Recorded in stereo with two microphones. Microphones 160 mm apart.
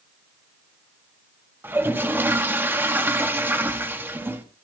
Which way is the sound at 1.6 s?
15° right (ahead or behind).